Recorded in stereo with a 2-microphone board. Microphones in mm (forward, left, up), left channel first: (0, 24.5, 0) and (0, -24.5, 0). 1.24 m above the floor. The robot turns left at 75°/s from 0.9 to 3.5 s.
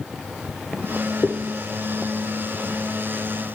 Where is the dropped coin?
35° left (ahead or behind), 1.1 m; by 1.3 s 40° left (ahead or behind), 1.1 m.